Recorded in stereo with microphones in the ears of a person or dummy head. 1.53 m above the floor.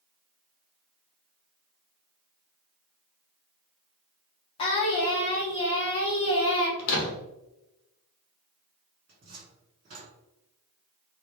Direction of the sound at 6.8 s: 50° left (ahead or behind).